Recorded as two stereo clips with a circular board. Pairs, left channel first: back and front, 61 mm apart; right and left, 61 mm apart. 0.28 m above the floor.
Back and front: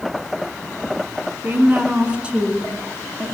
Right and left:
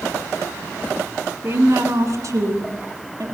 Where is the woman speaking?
55° left, 2.5 m; by 3.2 s 85° left, 3.5 m.